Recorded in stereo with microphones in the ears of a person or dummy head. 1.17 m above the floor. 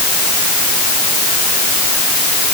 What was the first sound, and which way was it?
Only background noise.